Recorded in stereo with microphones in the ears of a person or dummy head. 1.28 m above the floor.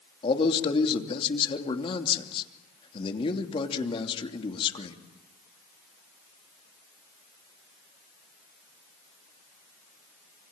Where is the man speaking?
30° left (ahead or behind), 3 m.